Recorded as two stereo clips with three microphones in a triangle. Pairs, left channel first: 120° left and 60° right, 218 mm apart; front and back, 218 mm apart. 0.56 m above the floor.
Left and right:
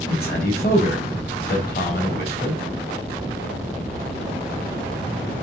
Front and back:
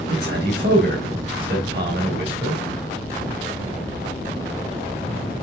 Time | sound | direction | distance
0.1 | a man speaking | 155° left | 3.5 m